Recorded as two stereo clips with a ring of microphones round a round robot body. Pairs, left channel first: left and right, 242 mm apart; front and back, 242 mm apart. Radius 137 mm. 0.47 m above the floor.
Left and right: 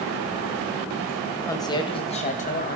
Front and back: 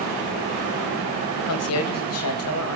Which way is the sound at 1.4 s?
10° left.